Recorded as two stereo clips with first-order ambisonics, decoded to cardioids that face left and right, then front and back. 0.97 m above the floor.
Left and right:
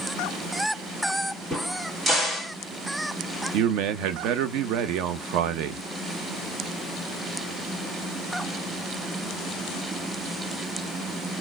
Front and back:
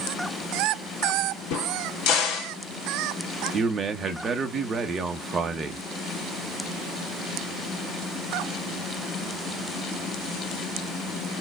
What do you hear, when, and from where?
1.5 s a crack: 15° right, 1.4 m
3.5 s a man speaking: 110° right, 0.8 m